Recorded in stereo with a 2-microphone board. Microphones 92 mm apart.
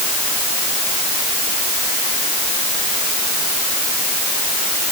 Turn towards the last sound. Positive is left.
No sound to turn to.